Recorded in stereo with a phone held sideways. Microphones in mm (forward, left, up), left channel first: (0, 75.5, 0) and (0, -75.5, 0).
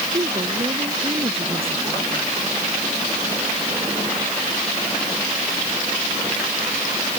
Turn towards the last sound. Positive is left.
turn(degrees=-40)  # may be behind; listen again after turning